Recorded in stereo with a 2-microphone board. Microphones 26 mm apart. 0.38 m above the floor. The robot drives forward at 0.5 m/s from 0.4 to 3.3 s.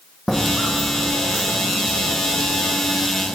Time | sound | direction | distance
0.3 | footsteps | 5° left (ahead or behind) | 0.8 m